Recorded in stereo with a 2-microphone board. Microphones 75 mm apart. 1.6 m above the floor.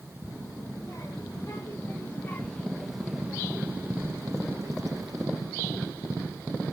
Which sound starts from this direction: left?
A child speaking, at 0.3 s.